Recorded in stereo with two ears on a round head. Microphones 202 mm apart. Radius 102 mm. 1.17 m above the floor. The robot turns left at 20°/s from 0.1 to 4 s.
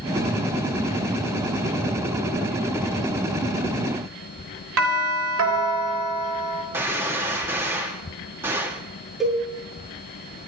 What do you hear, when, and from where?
4.8 s a doorbell: 65° right (ahead or behind), 3 m
6.7 s a gunshot: 10° right (ahead or behind), 2 m
9.2 s a cowbell: centre (ahead or behind), 7 m